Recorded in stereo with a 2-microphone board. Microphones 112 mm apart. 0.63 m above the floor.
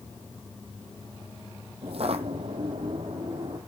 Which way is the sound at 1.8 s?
60° right (ahead or behind).